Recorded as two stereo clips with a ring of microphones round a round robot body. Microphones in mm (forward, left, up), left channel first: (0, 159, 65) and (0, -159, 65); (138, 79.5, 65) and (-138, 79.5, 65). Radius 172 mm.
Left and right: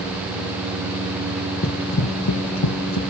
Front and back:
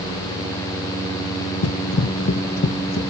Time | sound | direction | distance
1.6 | running footsteps | 30° left | 0.6 m